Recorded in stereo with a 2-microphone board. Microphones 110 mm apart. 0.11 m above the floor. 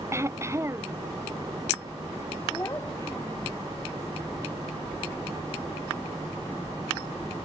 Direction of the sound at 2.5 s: 25° left (ahead or behind).